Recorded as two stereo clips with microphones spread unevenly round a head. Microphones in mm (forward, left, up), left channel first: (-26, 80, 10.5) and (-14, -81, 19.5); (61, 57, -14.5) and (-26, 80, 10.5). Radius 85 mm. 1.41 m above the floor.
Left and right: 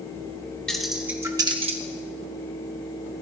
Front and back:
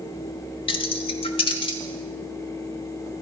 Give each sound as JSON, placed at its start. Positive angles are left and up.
{"t": 0.7, "sound": "keys jangling", "azimuth_deg": 5, "distance_m": 0.9}